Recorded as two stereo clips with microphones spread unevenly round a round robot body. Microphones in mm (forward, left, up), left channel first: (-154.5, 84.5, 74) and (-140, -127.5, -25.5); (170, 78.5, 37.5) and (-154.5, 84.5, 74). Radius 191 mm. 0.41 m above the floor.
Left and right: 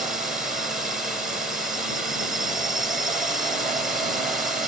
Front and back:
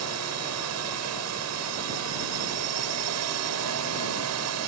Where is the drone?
150° right.